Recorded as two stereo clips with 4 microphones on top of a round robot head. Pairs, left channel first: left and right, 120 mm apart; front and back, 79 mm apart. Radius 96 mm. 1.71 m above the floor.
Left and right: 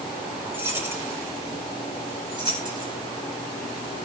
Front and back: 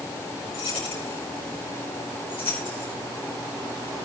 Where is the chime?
No chime in this recording.